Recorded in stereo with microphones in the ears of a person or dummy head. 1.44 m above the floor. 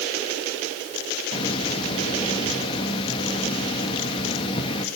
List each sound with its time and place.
1.3 s a hiss: 30° left (ahead or behind), 2 m